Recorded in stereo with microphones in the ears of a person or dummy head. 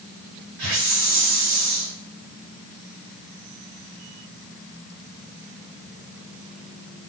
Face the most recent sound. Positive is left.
turn(degrees=-60)  # may be behind; listen again after turning